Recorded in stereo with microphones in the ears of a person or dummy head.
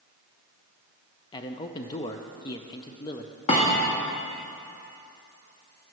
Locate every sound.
1.3 s a man speaking: 25° left (ahead or behind), 0.5 m
3.5 s a thud: 35° left (ahead or behind), 1.6 m